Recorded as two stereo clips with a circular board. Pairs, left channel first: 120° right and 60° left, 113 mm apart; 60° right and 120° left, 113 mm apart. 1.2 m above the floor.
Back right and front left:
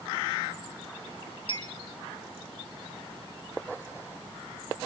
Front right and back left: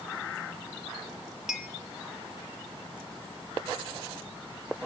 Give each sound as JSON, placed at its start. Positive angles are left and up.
{"t": 1.5, "sound": "a clink", "azimuth_deg": -155, "distance_m": 1.8}